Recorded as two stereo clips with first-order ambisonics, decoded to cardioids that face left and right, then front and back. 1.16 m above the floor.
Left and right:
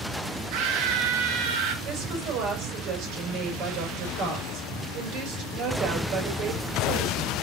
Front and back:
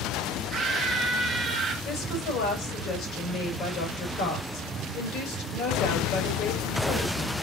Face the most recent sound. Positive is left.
turn(degrees=-50)